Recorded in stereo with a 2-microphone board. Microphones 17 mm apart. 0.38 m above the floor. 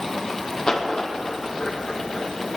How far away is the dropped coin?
About 3 m.